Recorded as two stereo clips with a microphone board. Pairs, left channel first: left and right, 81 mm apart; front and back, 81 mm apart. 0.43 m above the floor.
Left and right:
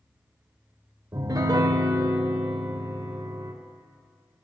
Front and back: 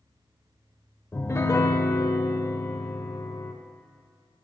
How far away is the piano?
About 0.5 m.